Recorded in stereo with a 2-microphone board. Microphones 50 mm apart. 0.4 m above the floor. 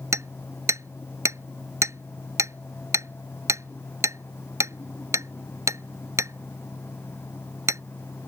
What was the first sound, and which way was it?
Hammering, 80° right.